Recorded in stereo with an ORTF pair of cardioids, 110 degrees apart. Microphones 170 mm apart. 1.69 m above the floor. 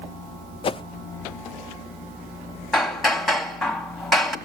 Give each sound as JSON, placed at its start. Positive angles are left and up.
{"t": 0.6, "sound": "a whoosh", "azimuth_deg": 30, "distance_m": 0.6}
{"t": 2.7, "sound": "hammering", "azimuth_deg": 0, "distance_m": 2.0}